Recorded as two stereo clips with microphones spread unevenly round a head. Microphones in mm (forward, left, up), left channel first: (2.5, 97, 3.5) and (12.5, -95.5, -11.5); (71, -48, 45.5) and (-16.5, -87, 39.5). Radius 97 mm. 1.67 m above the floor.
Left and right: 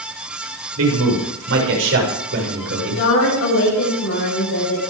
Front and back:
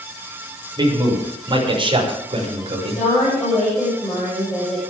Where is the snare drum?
No snare drum in this recording.